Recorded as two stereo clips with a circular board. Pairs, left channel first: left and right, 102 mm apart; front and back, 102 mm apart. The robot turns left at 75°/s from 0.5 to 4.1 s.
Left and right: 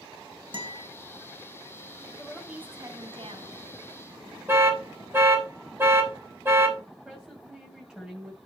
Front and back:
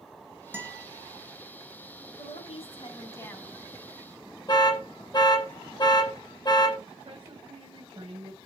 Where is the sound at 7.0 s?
175° right, 2 m.